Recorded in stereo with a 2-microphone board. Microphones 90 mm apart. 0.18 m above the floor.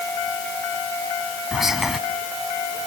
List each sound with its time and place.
1.5 s whispering: 5° right (ahead or behind), 1.0 m